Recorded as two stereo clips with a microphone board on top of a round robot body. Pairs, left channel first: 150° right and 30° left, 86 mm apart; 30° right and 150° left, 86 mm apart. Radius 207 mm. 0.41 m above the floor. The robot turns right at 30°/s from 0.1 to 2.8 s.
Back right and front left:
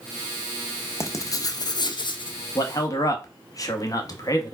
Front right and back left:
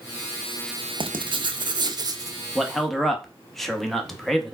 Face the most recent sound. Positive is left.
turn(degrees=-115)